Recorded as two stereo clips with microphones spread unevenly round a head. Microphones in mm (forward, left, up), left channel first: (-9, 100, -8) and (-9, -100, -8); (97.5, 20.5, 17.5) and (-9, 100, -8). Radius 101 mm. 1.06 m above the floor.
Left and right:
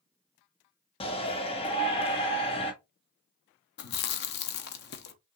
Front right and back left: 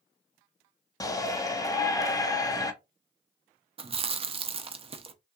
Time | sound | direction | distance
1.0 | a shout | 30° left | 1.1 m
3.8 | chewing | 95° left | 0.6 m